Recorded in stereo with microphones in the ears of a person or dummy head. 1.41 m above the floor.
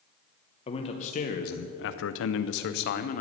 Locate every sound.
0.7 s a man speaking: 30° left (ahead or behind), 1.0 m; by 3.2 s 50° left (ahead or behind), 0.9 m